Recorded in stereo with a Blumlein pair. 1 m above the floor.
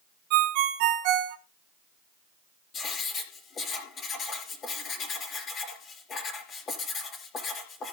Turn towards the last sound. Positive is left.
turn(degrees=25)